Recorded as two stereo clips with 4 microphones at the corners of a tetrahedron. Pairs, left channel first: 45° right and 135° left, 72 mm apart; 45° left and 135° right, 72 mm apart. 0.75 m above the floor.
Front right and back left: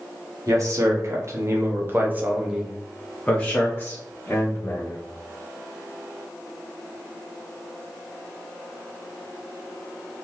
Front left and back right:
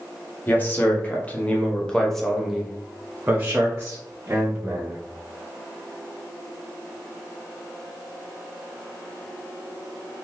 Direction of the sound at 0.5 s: 105° left.